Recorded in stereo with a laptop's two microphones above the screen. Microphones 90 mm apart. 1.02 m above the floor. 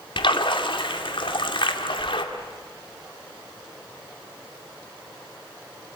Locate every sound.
0.2 s a splash: 65° left (ahead or behind), 2 m